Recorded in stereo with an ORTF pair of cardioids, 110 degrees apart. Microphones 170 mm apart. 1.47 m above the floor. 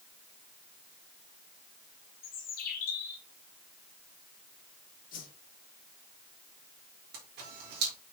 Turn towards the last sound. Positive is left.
turn(degrees=-60)